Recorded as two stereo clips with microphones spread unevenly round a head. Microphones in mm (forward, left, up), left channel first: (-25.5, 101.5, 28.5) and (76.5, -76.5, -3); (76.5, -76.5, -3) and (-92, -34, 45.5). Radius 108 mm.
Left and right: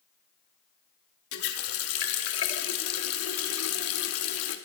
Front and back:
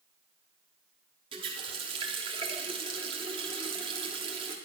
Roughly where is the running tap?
Left.